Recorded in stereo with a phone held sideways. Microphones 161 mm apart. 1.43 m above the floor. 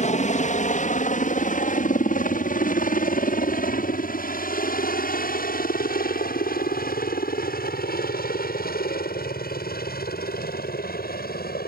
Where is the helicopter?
50° left (ahead or behind); by 11.7 s 75° left (ahead or behind).